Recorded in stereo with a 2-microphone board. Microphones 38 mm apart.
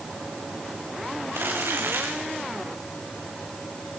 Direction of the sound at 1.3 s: 75° right (ahead or behind).